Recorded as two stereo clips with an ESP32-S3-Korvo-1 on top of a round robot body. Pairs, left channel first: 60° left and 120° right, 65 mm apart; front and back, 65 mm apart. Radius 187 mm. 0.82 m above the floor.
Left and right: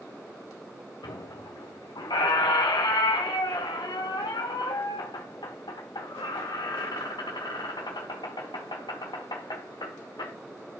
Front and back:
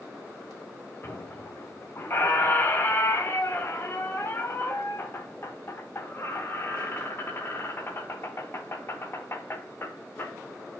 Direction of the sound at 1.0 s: 55° left.